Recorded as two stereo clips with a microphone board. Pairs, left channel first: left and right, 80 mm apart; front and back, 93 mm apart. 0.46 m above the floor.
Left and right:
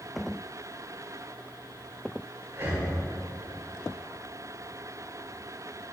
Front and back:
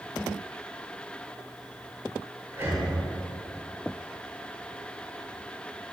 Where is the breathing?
130° right, 2 m.